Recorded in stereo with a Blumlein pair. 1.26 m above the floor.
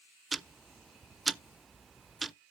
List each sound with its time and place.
0.3 s ticking: 10° right, 0.5 m